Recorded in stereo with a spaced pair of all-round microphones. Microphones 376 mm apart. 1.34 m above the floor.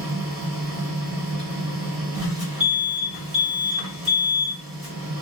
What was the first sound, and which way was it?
A machine running, 70° right (ahead or behind).